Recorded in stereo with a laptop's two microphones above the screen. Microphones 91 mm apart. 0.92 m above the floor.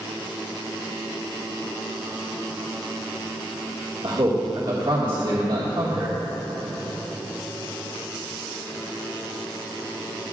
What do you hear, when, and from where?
4.0 s a man speaking: 50° right (ahead or behind), 1.9 m